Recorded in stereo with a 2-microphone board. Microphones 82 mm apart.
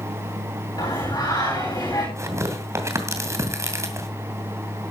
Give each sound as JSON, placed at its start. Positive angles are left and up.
{"t": 0.8, "sound": "singing", "side_deg": 50, "distance_m": 8.0}
{"t": 2.2, "sound": "tearing paper", "side_deg": -35, "distance_m": 2.0}